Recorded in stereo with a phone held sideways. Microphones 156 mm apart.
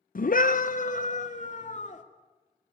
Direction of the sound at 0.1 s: 60° left (ahead or behind).